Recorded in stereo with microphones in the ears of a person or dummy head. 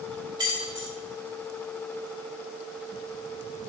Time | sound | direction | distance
0.4 | keys jangling | 20° right (ahead or behind) | 3 m